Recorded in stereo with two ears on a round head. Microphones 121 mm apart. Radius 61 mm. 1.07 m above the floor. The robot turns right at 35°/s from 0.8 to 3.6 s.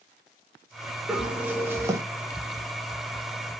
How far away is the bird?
About 0.8 m.